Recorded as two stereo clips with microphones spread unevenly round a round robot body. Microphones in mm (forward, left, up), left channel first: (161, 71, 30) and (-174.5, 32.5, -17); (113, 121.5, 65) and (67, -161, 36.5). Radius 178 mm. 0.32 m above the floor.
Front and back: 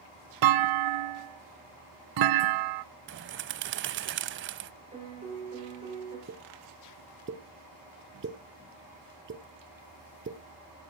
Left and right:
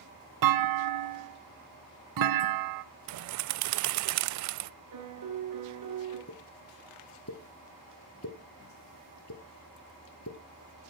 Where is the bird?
120° right, 0.5 m.